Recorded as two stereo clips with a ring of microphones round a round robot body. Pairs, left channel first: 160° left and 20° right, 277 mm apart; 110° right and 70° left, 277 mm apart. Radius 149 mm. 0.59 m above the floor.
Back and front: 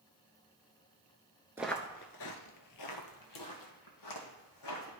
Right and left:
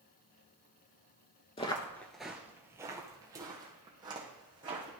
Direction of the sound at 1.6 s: 90° right.